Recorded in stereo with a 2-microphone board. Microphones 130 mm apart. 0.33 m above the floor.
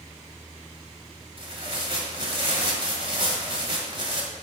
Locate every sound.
1.4 s tearing paper: 45° right (ahead or behind), 1.5 m